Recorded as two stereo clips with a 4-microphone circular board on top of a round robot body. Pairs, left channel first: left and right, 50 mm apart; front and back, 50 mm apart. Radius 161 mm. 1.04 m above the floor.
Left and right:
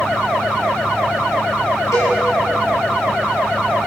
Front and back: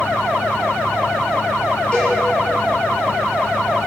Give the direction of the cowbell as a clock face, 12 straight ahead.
10 o'clock.